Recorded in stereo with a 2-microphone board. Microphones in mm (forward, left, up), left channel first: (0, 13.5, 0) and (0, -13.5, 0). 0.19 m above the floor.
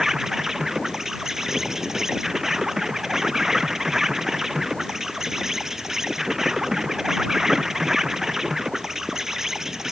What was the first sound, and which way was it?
An insect, 15° right (ahead or behind).